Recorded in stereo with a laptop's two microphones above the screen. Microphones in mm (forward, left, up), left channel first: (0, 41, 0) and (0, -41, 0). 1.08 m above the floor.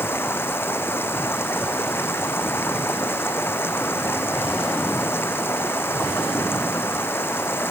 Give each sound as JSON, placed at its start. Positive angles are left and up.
{"t": 0.0, "sound": "running water", "side_deg": 25}